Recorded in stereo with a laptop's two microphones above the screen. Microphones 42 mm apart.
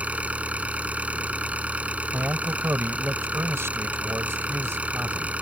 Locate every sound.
0.0 s an engine running: 35° right (ahead or behind)
2.1 s a man speaking: 85° right